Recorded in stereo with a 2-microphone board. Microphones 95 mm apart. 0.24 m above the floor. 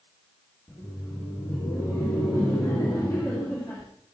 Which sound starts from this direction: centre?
Laughter, at 0.7 s.